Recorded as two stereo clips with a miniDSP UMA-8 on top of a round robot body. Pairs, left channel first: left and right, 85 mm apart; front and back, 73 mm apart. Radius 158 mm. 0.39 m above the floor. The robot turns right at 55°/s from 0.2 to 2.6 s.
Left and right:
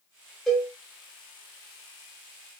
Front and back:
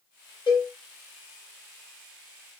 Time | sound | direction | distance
0.5 | a cowbell | 5° left | 1.0 m